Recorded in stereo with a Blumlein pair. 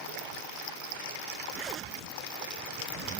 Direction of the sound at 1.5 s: 25° right.